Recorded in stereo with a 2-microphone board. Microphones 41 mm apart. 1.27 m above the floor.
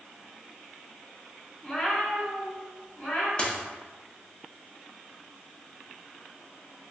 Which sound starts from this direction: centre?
A cat meowing, at 1.6 s.